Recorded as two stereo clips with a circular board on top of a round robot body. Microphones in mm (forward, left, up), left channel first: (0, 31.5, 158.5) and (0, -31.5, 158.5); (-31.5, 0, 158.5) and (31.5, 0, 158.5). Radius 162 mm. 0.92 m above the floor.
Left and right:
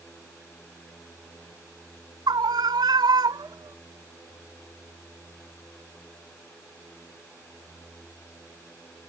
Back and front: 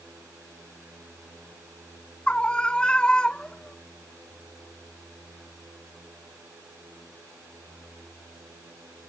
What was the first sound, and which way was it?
A scream, 105° right.